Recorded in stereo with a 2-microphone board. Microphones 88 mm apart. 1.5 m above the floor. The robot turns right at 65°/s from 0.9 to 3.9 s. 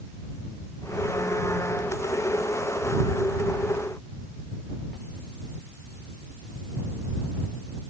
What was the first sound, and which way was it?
Only background noise.